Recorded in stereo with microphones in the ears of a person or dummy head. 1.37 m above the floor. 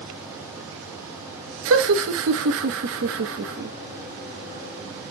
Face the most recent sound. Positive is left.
turn(degrees=-60)  # may be behind; listen again after turning